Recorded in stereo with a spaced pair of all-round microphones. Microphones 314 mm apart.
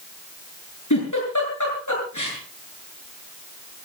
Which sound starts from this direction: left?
A giggle, at 0.9 s.